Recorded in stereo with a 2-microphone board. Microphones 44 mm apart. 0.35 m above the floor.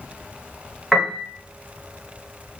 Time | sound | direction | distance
0.9 | a piano | 5° right (ahead or behind) | 0.7 m